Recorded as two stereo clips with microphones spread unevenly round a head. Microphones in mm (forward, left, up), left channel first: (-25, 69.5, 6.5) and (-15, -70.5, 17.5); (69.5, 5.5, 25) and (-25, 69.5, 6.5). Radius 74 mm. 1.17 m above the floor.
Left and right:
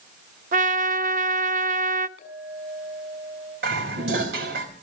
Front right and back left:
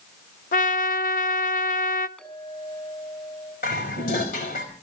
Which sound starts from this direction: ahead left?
A clink, at 2.2 s.